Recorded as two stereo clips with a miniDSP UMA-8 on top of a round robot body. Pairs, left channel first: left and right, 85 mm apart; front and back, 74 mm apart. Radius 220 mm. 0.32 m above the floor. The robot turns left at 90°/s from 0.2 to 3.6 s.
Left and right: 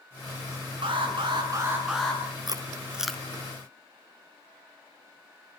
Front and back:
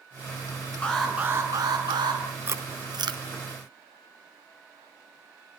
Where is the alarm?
75° right, 7.5 m; by 2.2 s 160° left, 7.5 m.